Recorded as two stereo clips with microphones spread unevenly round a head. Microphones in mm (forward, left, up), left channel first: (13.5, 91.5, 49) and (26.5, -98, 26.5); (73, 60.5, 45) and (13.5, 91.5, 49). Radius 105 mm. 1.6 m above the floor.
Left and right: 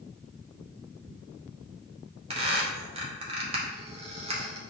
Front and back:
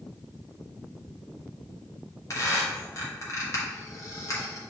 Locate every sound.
2.3 s a squeak: 30° right, 0.9 m